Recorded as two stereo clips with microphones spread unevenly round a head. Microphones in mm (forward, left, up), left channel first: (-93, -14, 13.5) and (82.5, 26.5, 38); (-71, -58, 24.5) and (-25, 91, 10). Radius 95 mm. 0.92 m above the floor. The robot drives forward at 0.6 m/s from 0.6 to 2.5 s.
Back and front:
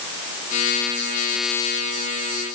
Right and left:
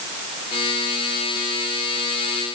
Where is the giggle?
I don't hear a giggle.